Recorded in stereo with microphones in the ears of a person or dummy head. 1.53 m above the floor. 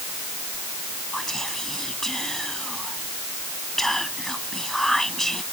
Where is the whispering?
Centre (ahead or behind).